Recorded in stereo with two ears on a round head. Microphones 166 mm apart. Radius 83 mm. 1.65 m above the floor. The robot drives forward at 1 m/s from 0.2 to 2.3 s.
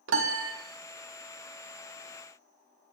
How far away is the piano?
About 1.2 m.